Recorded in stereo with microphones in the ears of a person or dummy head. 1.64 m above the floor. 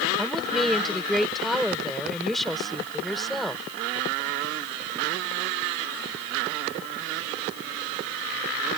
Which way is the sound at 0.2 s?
Centre (ahead or behind).